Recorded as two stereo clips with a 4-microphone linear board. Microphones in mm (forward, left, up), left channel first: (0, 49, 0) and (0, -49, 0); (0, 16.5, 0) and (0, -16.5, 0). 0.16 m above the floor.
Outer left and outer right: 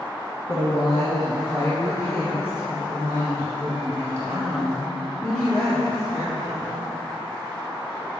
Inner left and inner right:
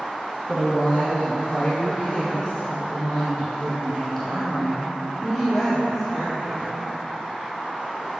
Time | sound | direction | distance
0.5 | a woman speaking | 45° left (ahead or behind) | 2 m